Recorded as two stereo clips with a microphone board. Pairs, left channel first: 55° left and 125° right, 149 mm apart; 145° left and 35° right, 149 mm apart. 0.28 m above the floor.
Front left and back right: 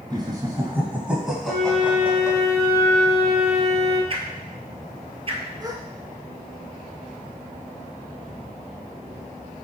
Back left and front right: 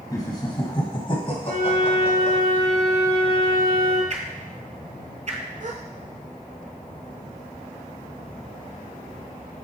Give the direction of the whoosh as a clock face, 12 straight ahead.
2 o'clock.